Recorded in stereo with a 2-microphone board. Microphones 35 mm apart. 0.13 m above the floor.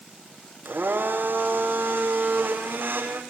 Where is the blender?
80° right, 5.5 m.